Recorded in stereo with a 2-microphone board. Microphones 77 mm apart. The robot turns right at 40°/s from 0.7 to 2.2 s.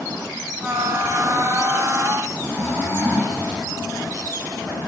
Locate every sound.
2.3 s snoring: 25° left (ahead or behind), 5.5 m